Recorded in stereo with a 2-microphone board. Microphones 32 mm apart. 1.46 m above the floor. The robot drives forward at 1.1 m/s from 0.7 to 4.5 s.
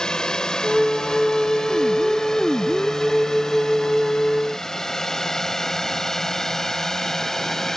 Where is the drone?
20° left (ahead or behind); by 7.8 s 10° left (ahead or behind).